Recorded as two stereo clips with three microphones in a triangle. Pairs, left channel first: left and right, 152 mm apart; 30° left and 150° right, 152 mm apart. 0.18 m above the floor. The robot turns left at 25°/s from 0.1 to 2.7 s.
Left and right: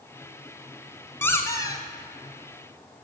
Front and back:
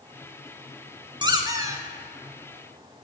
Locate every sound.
1.2 s a squeak: 160° left, 0.8 m; by 1.8 s 145° left, 0.8 m